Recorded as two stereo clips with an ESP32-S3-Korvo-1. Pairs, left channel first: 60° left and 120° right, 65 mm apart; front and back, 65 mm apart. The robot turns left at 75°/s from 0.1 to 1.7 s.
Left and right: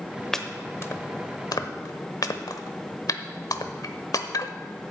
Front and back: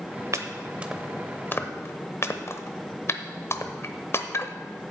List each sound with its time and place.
0.3 s chopping: 145° left, 0.8 m; by 4.9 s 40° left, 0.8 m